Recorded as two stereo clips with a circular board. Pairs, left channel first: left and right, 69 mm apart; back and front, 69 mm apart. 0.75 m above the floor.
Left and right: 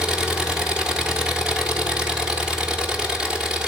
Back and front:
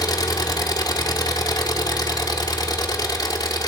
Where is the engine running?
165° right, 1.3 m.